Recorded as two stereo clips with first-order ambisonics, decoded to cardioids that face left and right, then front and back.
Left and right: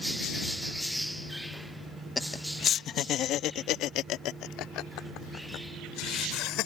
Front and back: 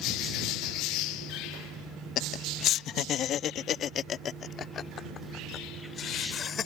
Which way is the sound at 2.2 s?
15° left.